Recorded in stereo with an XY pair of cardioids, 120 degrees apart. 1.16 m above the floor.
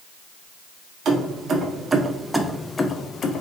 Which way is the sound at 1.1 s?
55° right.